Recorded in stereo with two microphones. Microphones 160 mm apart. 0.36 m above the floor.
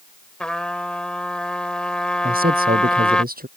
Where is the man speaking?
65° right (ahead or behind).